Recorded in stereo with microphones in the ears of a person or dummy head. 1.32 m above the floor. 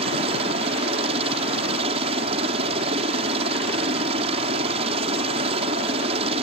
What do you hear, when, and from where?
0.0 s a helicopter: 40° right (ahead or behind)